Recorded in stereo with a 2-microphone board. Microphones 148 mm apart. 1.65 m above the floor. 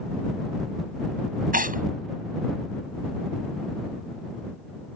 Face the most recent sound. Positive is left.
turn(degrees=-70)  # may be behind; listen again after turning